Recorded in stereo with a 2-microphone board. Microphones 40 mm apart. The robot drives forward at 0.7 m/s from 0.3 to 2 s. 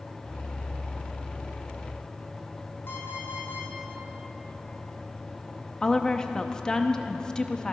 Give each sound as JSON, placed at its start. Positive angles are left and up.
{"t": 2.9, "sound": "an alarm clock", "side_deg": 75, "distance_m": 3.0}
{"t": 5.8, "sound": "a woman speaking", "side_deg": 15, "distance_m": 0.8}